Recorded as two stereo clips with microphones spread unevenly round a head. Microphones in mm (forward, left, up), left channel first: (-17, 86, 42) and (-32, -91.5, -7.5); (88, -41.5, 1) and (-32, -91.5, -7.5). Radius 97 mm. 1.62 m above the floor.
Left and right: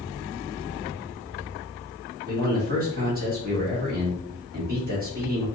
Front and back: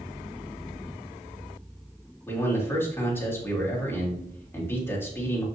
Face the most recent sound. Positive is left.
turn(degrees=-50)